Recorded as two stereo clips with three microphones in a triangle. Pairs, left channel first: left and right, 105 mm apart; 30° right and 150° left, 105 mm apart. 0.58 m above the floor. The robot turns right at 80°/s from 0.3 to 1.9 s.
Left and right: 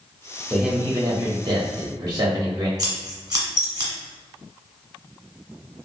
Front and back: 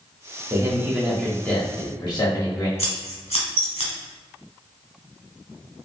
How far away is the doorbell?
I don't hear a doorbell.